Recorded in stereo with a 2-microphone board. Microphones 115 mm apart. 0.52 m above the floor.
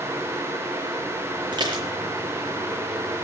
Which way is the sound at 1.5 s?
40° right (ahead or behind).